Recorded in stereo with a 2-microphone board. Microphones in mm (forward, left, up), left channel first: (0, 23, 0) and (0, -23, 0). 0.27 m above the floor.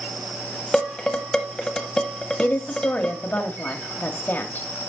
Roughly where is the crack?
No crack in this recording.